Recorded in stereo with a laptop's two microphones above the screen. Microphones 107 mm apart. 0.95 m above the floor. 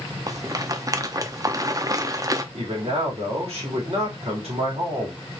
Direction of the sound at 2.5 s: 70° right (ahead or behind).